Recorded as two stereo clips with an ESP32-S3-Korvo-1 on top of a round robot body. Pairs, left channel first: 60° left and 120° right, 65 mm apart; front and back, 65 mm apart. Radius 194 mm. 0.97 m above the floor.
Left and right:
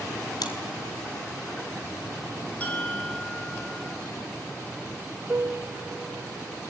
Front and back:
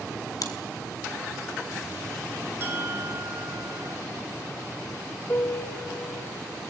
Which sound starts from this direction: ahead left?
Chewing, at 0.4 s.